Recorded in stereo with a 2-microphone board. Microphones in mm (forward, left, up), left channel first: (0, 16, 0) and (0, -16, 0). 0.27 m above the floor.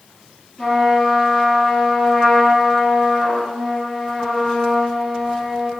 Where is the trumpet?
35° left (ahead or behind), 1.6 m.